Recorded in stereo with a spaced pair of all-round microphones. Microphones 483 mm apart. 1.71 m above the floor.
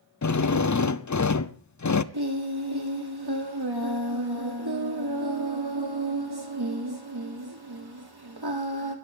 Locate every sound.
0.2 s a drill: 40° left (ahead or behind), 0.5 m
2.1 s singing: 55° right (ahead or behind), 2 m